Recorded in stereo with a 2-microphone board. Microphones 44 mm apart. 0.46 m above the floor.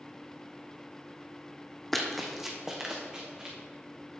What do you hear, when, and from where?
1.9 s running footsteps: 5° left (ahead or behind), 1.0 m; by 3.5 s 20° right (ahead or behind), 1.9 m